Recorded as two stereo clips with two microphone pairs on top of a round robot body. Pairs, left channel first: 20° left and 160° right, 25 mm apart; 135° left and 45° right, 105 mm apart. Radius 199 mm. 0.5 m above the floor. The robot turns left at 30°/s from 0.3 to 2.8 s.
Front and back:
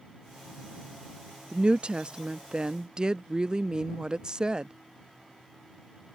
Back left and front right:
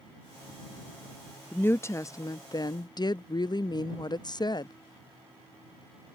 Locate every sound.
1.5 s a woman speaking: 160° right; by 4.7 s 160° left